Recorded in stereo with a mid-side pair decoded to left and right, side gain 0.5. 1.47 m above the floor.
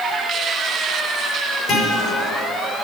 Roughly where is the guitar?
Ahead left.